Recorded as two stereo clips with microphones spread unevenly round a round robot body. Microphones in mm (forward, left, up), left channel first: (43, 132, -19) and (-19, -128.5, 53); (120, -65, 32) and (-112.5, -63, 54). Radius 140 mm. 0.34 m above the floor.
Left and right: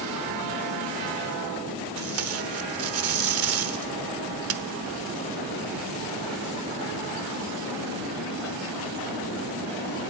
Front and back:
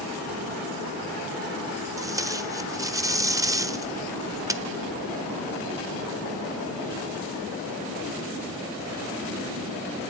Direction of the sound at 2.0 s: 105° right.